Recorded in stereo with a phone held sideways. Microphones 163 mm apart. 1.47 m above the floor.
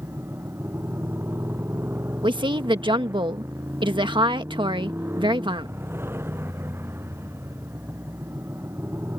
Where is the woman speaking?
30° right (ahead or behind).